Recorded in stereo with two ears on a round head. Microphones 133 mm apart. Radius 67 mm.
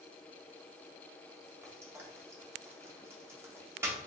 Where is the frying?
15° right (ahead or behind), 0.8 m.